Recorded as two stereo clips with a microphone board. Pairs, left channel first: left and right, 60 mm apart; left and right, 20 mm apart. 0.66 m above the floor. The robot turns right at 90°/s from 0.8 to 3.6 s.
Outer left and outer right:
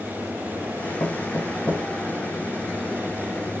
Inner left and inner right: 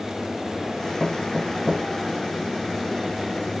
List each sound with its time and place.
1.0 s knocking: 80° left, 6.5 m; by 1.9 s 15° left (ahead or behind), 6.5 m